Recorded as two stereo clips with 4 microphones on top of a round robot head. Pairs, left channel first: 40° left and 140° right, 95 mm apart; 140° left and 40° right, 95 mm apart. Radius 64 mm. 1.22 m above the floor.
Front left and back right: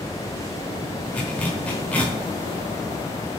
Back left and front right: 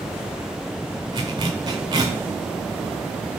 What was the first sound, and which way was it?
A zipper, 30° right.